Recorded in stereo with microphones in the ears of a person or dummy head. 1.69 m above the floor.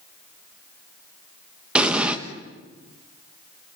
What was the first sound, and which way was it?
An explosion, 5° right (ahead or behind).